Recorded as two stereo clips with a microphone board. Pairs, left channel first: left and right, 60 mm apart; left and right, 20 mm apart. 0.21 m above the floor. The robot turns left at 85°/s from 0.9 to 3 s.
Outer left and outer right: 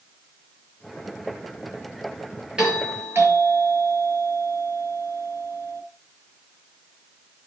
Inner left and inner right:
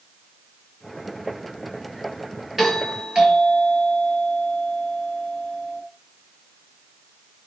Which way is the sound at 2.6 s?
15° right.